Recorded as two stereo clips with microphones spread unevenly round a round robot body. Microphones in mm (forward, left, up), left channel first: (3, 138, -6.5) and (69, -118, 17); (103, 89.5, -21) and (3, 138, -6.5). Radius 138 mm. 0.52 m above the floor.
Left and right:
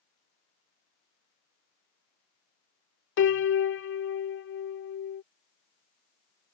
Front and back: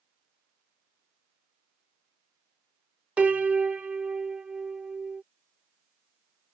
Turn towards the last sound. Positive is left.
turn(degrees=70)